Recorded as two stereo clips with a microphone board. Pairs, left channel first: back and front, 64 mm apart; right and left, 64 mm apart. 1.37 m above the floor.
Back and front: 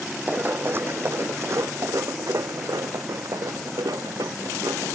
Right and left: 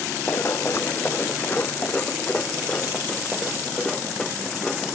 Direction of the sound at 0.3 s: 55° right.